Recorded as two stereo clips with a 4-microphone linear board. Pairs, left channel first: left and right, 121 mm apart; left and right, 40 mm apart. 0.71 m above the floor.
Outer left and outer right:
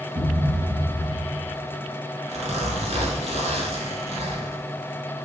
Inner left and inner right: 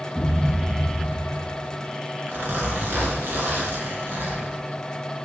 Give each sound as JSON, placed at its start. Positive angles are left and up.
{"t": 0.1, "sound": "a thud", "side_deg": -50, "distance_m": 1.8}
{"t": 2.3, "sound": "a zipper", "side_deg": -60, "distance_m": 1.3}